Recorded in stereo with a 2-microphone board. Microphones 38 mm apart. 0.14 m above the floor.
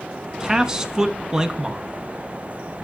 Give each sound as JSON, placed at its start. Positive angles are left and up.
{"t": 0.4, "sound": "a man speaking", "side_deg": -20, "distance_m": 1.0}